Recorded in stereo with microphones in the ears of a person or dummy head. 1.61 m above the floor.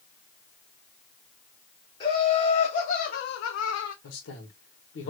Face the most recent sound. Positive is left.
turn(degrees=80)